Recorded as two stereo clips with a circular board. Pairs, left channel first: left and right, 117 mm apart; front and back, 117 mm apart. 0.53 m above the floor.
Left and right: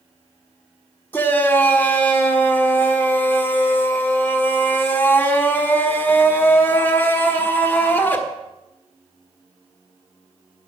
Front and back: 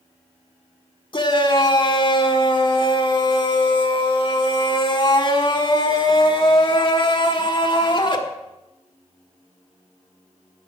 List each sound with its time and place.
1.1 s a shout: 20° left, 1.4 m